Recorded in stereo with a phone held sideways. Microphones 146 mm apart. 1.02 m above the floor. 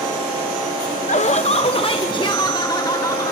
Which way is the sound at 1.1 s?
55° left (ahead or behind).